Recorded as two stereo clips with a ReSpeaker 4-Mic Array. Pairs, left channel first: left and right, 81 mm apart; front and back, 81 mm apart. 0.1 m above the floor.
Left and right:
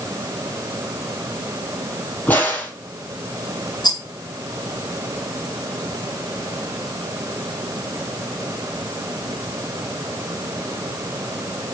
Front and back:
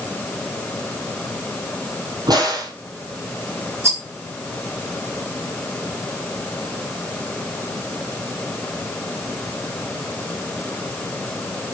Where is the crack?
155° left, 4 m.